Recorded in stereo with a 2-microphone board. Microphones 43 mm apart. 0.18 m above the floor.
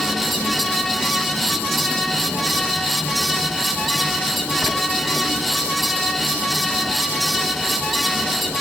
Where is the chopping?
No chopping in this recording.